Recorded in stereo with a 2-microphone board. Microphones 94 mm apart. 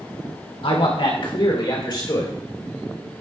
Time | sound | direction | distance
0.6 | a man speaking | 70° left (ahead or behind) | 2.5 m